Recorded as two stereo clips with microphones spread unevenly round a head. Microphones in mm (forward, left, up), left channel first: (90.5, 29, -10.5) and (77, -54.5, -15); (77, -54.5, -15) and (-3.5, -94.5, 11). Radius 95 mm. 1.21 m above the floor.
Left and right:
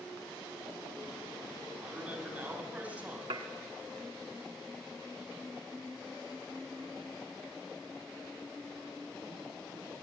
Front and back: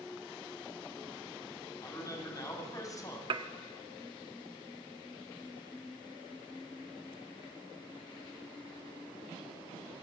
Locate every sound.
1.8 s a man speaking: 25° right, 7 m
3.3 s dishes clattering: 150° right, 1.4 m